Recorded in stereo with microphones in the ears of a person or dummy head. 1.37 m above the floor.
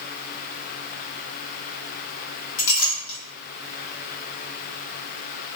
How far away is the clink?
About 1.3 m.